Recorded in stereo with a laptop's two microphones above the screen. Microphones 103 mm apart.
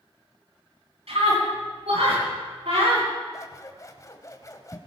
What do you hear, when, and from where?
1.1 s a scream: 85° right, 10 m; by 3.1 s 90° right, 11 m
3.3 s scissors: 35° left (ahead or behind), 1.2 m